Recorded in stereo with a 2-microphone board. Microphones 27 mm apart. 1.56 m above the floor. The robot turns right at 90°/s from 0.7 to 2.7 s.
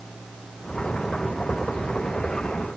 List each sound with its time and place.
Only background noise.